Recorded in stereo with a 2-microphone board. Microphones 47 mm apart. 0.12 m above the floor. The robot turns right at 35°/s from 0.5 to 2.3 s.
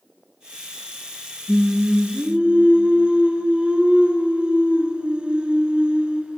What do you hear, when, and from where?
1.5 s singing: 10° right (ahead or behind), 1.3 m; by 6.4 s 25° right (ahead or behind), 1.3 m